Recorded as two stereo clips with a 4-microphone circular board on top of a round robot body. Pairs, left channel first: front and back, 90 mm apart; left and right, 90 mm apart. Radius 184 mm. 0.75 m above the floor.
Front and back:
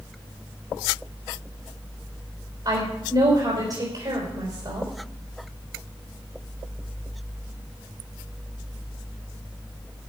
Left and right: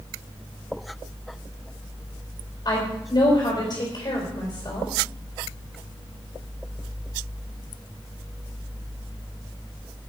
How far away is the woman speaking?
About 4.5 m.